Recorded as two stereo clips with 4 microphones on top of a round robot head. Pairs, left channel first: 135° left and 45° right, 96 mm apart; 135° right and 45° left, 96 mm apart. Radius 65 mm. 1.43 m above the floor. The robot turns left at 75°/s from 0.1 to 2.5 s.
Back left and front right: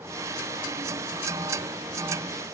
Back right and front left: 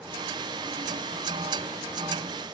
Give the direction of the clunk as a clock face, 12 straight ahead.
I don't hear a clunk.